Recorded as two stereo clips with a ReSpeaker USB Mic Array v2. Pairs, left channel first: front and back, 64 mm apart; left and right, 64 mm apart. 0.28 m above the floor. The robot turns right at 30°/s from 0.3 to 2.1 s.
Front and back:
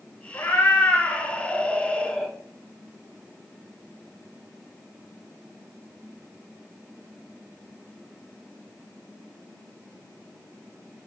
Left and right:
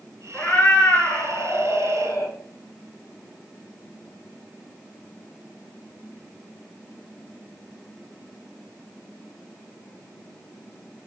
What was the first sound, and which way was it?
A cat meowing, 35° left.